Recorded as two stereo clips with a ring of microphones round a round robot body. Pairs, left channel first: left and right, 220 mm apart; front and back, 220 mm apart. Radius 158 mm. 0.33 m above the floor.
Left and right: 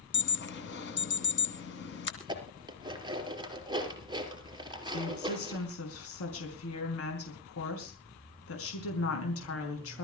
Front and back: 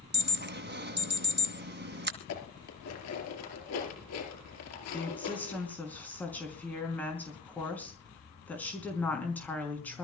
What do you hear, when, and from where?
0.1 s an alarm: 140° left, 2.5 m
2.2 s dishes clattering: 20° right, 4.5 m
4.9 s a woman speaking: 85° left, 5 m